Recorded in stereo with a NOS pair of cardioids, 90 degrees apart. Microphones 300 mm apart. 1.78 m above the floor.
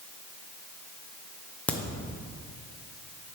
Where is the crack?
5° left, 1.2 m.